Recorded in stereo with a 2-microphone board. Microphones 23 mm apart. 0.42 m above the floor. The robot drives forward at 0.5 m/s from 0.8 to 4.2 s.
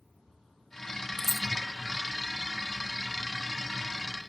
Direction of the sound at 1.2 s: 20° left (ahead or behind).